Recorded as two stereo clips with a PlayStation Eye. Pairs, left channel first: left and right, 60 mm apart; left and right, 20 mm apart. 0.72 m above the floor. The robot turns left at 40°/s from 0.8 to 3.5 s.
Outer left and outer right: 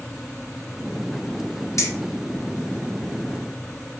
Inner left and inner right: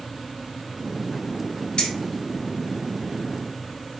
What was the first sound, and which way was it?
Keys jangling, 55° left (ahead or behind).